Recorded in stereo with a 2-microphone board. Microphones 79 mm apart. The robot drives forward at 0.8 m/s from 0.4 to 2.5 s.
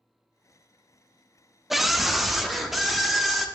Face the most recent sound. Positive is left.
turn(degrees=0)  # may be behind; listen again after turning